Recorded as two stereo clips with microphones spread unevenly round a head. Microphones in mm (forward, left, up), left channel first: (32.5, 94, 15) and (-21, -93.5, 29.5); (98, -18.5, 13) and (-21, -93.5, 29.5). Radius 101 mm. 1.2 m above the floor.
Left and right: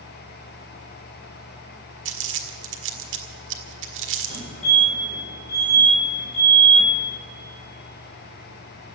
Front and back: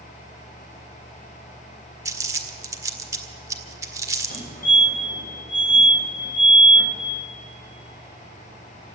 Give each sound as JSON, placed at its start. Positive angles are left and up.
{"t": 2.0, "sound": "crumpling", "azimuth_deg": -85, "distance_m": 1.7}
{"t": 4.3, "sound": "a fire alarm", "azimuth_deg": 20, "distance_m": 6.5}